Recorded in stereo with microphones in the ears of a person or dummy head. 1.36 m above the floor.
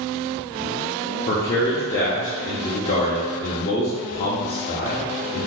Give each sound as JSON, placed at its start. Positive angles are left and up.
{"t": 1.3, "sound": "a man speaking", "side_deg": 35, "distance_m": 0.7}